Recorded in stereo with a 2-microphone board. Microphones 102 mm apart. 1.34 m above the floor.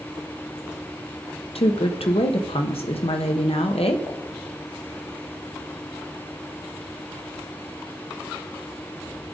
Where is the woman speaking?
75° left (ahead or behind), 0.9 m.